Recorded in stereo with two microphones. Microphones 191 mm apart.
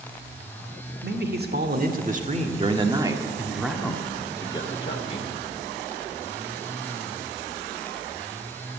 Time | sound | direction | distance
1.0 | a man speaking | 60° right (ahead or behind) | 1.8 m